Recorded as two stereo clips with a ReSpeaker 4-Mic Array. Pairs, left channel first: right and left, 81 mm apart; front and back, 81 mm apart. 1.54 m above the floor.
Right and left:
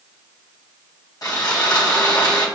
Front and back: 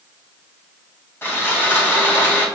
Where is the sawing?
55° right, 1.2 m.